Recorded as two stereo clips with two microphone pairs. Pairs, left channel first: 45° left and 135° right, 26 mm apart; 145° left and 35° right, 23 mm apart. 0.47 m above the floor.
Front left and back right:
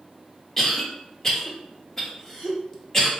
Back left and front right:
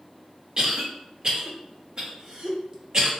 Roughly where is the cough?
Ahead.